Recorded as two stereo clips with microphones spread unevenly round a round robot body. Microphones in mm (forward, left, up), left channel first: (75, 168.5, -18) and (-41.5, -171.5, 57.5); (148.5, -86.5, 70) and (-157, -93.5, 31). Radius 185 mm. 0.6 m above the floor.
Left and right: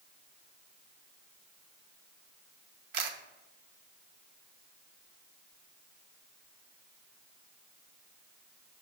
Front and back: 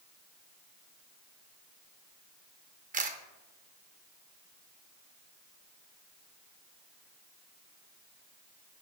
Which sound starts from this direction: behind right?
A camera shutter, at 2.9 s.